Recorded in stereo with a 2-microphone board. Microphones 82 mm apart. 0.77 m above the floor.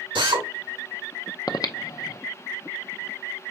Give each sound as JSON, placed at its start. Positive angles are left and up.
{"t": 0.1, "sound": "a drill", "side_deg": -85, "distance_m": 1.8}
{"t": 1.5, "sound": "breathing", "side_deg": 50, "distance_m": 0.6}